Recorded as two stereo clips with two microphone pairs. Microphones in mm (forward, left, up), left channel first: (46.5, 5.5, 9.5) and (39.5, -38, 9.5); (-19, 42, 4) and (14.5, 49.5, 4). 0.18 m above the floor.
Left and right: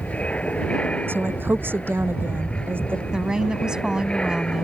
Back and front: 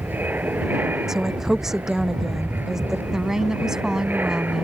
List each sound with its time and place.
0.0 s an aircraft: 20° left; by 4.6 s 10° left
1.1 s a woman speaking: 65° right
3.1 s a woman speaking: 45° right